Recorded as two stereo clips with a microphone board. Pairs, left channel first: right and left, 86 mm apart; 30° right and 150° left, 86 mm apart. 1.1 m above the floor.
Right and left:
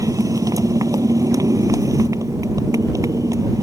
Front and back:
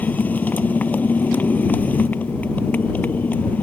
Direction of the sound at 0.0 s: 40° left.